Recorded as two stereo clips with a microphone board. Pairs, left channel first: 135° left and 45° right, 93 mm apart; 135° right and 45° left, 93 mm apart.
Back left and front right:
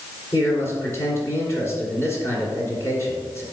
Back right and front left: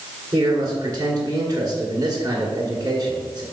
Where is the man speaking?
85° left, 2 m.